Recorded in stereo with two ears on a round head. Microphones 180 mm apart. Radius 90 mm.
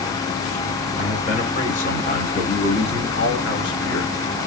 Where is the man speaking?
35° left (ahead or behind), 2.5 m; by 4.1 s 65° left (ahead or behind), 3 m.